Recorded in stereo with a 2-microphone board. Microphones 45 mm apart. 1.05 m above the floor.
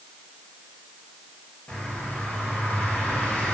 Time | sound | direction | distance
1.7 | a bird | 35° left (ahead or behind) | 1.0 m